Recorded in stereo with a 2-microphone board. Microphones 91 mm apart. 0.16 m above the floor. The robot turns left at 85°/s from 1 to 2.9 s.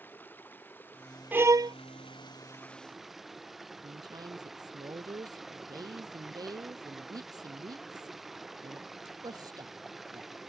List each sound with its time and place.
0.0 s running water: 160° left; by 10.5 s straight ahead
1.3 s a violin: 20° right; by 1.8 s 60° right
3.8 s a woman speaking: 45° right (ahead or behind)